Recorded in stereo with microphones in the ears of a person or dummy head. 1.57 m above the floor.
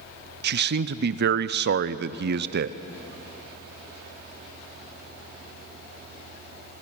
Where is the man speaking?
60° right (ahead or behind), 0.6 m.